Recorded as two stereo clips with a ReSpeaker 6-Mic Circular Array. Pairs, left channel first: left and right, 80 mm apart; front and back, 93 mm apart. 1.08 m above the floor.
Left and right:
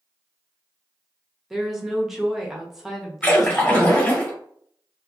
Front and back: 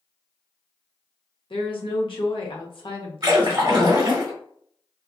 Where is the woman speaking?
5° right, 0.9 m.